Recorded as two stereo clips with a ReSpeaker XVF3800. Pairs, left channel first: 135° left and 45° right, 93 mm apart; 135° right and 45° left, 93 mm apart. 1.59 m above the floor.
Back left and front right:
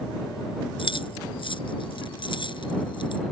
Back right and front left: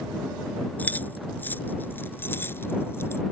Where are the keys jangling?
155° left; by 3.2 s 165° left.